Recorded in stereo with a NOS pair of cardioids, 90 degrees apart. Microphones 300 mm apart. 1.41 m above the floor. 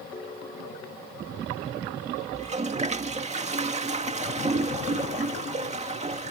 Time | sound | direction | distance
0.1 | a ringtone | 20° left | ?
2.3 | a toilet flushing | 20° right | ?